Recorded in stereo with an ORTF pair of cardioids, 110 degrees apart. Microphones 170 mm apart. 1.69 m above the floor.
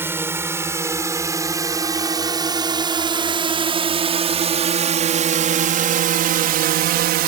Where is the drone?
15° right; by 7.3 s 70° right.